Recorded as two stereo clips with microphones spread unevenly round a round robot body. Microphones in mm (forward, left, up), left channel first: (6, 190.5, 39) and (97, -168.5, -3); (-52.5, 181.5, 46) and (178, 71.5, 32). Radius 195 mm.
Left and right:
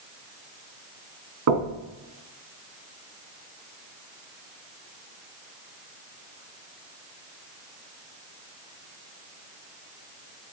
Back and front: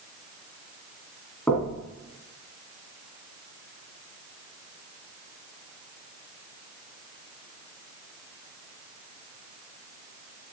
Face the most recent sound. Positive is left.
turn(degrees=-120)